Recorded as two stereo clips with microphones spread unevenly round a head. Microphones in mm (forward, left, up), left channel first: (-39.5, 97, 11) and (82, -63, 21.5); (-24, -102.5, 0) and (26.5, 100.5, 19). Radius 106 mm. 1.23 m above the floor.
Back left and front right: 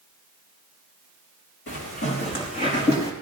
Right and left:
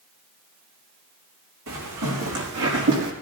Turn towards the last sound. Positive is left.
turn(degrees=65)